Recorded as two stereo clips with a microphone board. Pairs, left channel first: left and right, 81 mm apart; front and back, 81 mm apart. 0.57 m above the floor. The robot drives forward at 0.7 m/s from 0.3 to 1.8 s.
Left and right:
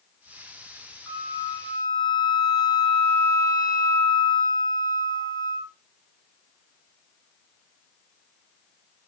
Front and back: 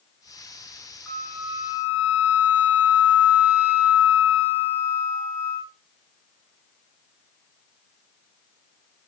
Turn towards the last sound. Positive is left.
turn(degrees=110)